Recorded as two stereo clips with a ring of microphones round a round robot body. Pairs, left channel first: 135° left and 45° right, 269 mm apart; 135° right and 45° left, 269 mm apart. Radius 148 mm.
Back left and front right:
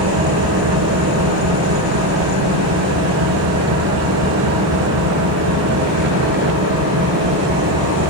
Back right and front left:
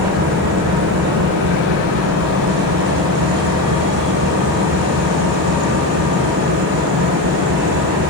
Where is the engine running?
5° right, 9.5 m.